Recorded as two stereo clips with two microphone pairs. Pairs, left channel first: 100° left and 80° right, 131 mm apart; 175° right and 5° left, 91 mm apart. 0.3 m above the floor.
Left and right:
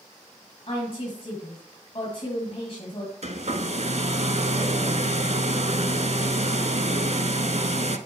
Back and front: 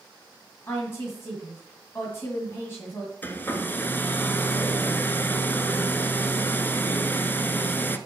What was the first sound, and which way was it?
A woman speaking, 130° left.